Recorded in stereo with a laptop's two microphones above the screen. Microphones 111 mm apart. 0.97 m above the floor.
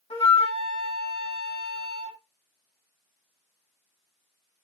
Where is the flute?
70° left (ahead or behind), 2 m.